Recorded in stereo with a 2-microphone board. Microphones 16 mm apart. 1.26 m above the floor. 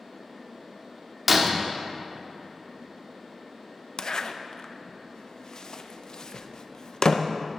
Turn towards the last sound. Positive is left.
turn(degrees=45)  # may be behind; listen again after turning